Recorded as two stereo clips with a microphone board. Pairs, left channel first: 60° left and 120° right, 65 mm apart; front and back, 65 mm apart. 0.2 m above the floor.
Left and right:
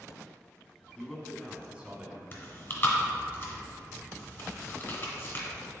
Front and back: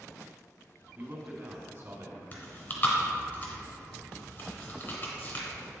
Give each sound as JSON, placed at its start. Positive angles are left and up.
{"t": 1.0, "sound": "a man speaking", "azimuth_deg": 140, "distance_m": 1.6}
{"t": 2.3, "sound": "chewing", "azimuth_deg": 25, "distance_m": 1.8}